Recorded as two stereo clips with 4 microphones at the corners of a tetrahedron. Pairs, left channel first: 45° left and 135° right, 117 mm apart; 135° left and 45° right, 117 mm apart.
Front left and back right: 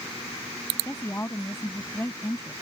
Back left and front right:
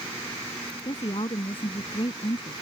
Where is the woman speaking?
110° left.